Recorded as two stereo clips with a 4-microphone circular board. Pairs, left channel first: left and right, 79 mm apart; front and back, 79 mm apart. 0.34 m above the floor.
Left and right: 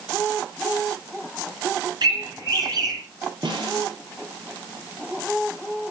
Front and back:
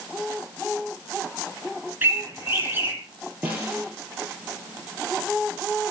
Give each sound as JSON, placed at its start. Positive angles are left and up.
{"t": 2.0, "sound": "a bird", "azimuth_deg": -120, "distance_m": 3.0}
{"t": 3.4, "sound": "a snare drum", "azimuth_deg": -110, "distance_m": 4.5}